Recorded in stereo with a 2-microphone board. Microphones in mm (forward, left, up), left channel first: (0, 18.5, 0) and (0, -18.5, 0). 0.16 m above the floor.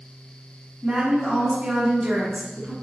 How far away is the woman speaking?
About 1.3 m.